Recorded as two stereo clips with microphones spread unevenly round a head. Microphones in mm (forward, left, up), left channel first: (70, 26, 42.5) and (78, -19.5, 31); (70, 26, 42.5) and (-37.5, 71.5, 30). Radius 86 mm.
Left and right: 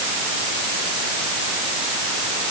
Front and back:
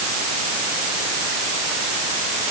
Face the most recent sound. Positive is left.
No sound to turn to.